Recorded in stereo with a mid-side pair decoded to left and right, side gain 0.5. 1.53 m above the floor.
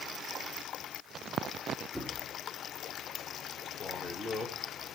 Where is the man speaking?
25° left, 2.0 m.